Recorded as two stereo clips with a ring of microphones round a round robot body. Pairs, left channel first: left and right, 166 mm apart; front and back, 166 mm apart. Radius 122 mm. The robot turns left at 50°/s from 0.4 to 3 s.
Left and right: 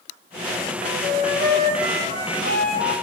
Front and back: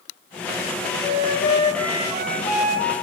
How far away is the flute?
About 4 m.